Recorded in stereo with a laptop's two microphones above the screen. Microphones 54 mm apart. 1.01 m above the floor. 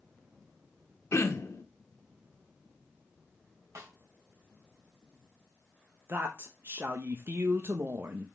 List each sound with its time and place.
1.1 s throat clearing: 65° left (ahead or behind), 1.0 m
3.8 s a snare drum: 70° right (ahead or behind), 2.5 m
6.1 s a woman speaking: 45° right (ahead or behind), 1.0 m